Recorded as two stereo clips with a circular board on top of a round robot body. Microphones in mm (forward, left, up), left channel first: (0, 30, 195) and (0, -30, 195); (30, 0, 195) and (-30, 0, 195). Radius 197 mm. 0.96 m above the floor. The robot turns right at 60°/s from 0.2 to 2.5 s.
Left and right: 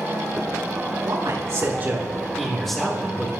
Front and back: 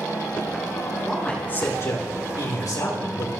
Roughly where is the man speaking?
Right.